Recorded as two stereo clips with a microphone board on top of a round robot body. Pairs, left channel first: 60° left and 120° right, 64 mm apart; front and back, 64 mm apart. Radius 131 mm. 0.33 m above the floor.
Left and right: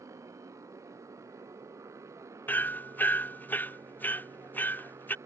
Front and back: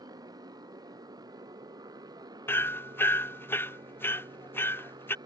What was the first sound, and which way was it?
A motorcycle, 160° right.